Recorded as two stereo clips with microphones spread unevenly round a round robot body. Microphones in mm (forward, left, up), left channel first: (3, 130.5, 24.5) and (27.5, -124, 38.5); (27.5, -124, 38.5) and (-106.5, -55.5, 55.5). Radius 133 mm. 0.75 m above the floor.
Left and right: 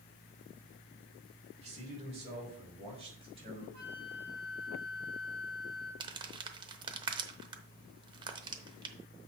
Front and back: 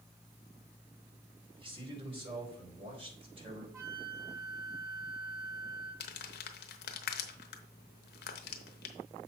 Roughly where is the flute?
Behind right.